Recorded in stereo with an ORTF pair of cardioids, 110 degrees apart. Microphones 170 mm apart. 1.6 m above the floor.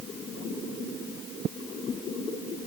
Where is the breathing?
I don't hear breathing.